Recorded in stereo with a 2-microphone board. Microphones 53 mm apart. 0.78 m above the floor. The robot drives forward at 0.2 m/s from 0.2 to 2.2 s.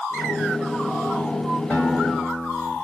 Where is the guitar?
15° left (ahead or behind), 3 m.